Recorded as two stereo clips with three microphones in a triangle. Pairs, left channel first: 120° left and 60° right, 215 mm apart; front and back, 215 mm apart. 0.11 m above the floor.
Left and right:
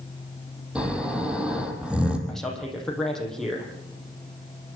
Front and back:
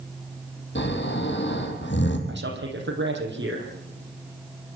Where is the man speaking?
150° right, 5.5 m.